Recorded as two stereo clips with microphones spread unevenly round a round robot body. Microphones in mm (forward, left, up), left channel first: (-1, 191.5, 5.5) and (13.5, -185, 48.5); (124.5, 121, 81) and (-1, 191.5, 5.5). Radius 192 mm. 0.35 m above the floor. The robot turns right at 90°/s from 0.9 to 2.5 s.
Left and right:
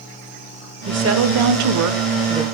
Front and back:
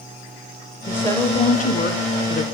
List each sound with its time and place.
0.9 s a woman speaking: 145° right, 1.4 m; by 2.4 s 5° right, 1.4 m